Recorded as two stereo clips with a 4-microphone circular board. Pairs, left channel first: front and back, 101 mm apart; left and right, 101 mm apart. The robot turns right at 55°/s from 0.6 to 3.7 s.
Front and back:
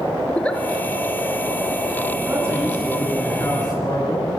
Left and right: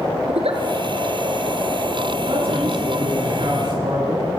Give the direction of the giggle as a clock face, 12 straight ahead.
3 o'clock.